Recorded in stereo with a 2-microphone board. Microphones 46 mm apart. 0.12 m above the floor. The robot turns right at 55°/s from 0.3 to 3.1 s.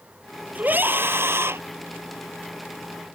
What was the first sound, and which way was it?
A scream, 140° right.